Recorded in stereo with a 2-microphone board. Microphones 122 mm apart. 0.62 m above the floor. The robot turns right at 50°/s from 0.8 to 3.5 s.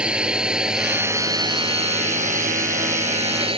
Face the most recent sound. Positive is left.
turn(degrees=-45)  # may be behind; listen again after turning